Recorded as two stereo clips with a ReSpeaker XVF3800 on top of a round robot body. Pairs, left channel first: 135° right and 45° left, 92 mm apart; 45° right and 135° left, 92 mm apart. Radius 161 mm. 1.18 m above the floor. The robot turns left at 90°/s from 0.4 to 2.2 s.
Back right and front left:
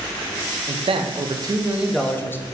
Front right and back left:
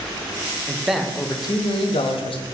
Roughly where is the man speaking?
Left.